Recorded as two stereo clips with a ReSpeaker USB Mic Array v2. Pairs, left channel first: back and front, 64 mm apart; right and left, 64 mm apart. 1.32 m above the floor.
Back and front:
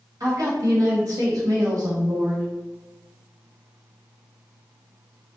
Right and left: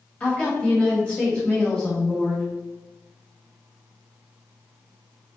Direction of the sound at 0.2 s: 20° right.